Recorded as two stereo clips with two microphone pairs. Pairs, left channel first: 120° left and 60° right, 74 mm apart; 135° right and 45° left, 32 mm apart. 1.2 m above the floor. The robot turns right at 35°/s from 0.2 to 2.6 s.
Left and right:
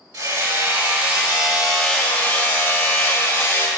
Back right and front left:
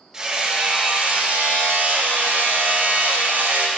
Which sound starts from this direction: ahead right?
Hammering, at 0.1 s.